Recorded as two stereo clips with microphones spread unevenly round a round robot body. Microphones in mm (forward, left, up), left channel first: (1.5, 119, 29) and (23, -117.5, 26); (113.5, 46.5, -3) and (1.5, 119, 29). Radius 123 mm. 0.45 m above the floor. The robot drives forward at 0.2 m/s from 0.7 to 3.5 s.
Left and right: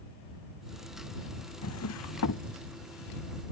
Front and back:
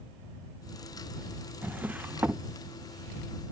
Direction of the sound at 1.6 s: 70° left.